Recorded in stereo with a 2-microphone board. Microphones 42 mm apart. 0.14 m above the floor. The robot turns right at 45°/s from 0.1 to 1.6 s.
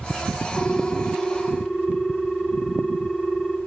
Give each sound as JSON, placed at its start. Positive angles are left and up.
{"t": 0.6, "sound": "a ringtone", "azimuth_deg": 120, "distance_m": 1.5}